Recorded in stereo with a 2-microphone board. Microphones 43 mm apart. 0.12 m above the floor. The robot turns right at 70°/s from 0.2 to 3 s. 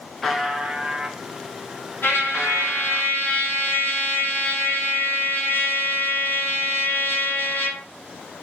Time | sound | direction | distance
0.2 | a buzzer | straight behind | 0.7 m
2.0 | a trumpet | 70° left | 1.3 m